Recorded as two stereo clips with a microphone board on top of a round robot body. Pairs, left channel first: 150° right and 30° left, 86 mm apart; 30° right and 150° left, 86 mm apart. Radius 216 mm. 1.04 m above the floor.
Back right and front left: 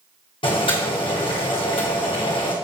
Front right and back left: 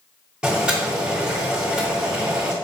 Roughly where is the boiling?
Behind right.